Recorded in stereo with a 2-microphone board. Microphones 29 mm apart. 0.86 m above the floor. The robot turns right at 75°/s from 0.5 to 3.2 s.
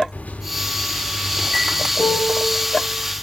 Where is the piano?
95° left, 2.5 m; by 2.5 s 135° left, 2.5 m.